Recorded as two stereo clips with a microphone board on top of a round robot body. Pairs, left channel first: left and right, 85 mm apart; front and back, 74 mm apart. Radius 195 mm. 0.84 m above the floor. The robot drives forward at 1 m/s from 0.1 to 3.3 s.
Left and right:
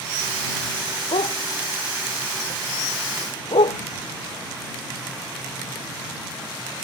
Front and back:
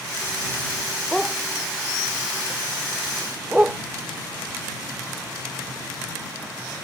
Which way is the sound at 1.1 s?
90° left.